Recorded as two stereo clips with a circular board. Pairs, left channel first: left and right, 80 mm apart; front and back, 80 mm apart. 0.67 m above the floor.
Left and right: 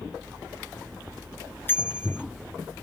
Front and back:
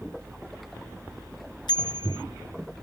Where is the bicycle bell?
25° left.